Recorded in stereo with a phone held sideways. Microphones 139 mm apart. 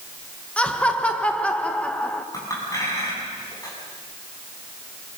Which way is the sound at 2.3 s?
25° left (ahead or behind).